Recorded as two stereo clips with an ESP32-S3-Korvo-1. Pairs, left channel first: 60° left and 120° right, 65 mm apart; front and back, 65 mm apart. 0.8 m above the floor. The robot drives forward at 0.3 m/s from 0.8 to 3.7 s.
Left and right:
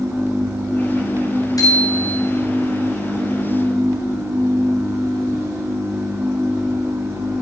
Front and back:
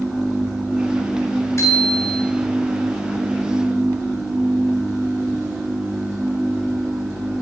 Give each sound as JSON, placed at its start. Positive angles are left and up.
{"t": 1.6, "sound": "a bicycle bell", "azimuth_deg": 40, "distance_m": 7.5}